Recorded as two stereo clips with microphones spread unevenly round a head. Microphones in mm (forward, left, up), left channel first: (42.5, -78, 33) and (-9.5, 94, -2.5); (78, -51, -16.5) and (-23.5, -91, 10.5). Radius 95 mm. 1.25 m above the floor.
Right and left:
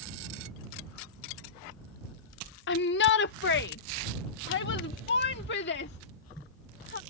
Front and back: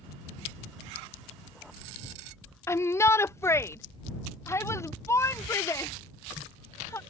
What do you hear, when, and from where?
2.7 s a shout: 45° right